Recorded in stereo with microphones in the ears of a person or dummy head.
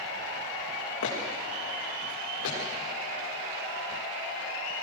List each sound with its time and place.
1.0 s footsteps: 75° left (ahead or behind), 7 m; by 2.6 s 80° left, 8.5 m